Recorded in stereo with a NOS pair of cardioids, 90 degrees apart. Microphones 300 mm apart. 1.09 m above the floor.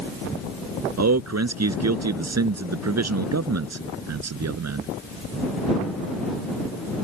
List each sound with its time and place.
1.0 s a man speaking: 55° right